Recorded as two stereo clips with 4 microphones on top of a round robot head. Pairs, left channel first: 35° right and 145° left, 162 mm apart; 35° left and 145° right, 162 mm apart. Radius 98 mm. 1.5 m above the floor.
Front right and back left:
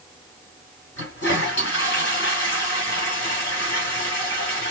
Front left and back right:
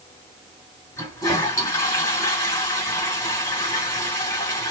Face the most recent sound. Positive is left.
turn(degrees=-40)